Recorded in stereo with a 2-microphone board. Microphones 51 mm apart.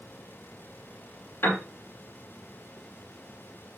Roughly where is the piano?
Left.